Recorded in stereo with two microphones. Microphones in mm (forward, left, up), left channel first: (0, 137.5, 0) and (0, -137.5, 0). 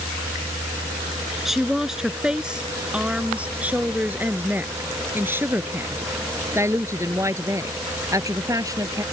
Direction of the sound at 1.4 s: Centre (ahead or behind).